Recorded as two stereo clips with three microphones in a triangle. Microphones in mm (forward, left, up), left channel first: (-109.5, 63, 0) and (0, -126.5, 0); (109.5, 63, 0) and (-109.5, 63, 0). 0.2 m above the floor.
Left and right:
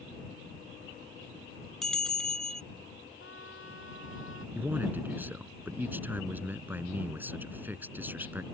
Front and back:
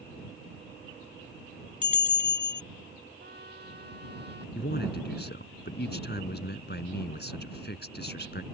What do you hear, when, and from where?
1.8 s a bell: 35° left
3.2 s a trumpet: 140° left
4.5 s a man speaking: 20° left